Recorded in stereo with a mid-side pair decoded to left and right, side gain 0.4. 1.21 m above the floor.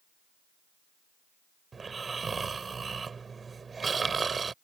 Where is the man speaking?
I don't hear a man speaking.